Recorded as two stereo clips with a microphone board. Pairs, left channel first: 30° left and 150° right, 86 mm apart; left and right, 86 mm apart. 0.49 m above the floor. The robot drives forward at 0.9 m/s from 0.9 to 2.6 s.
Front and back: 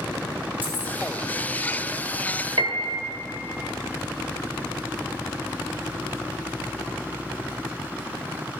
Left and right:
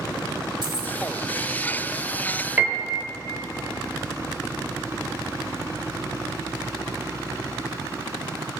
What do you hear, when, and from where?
0.6 s keys jangling: 85° right, 1.4 m; by 0.9 s 90° right, 1.4 m
2.6 s a piano: 155° right, 1.0 m; by 3.0 s 160° right, 1.1 m